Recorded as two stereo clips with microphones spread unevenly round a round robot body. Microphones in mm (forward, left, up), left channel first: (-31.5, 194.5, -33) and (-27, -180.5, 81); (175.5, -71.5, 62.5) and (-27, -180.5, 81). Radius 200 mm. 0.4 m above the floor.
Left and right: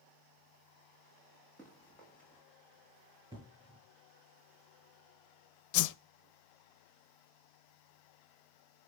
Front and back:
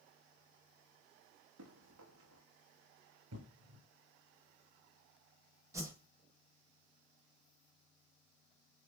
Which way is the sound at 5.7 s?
125° left.